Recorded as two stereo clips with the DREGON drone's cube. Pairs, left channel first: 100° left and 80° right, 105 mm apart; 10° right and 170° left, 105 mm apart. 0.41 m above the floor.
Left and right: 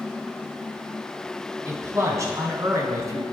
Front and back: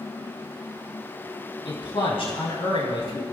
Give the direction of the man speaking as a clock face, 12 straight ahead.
1 o'clock.